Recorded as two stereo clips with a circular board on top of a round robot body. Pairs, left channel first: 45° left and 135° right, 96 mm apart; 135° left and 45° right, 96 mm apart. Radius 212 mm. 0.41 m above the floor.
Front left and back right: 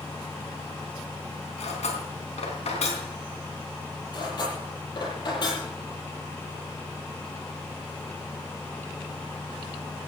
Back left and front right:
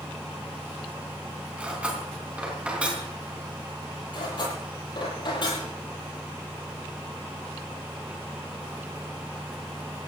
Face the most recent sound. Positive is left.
turn(degrees=90)